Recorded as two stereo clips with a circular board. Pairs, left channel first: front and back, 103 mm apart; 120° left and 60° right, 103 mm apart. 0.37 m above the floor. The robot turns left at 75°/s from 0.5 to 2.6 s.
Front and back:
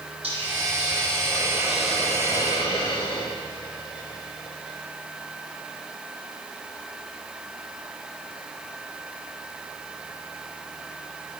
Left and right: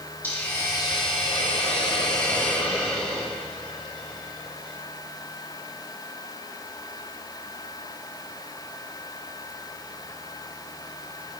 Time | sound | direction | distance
0.2 | a hiss | 170° right | 6 m